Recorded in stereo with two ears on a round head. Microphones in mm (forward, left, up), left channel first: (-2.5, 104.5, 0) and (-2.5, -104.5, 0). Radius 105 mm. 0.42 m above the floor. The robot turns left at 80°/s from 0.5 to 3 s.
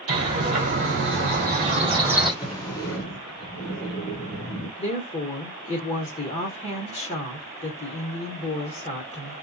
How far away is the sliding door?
About 1.2 m.